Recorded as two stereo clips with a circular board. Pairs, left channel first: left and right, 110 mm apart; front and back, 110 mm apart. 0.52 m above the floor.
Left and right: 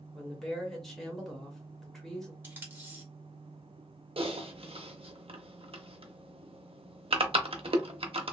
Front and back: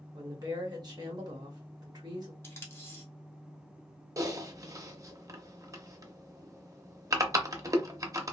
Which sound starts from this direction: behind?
A woman speaking, at 0.1 s.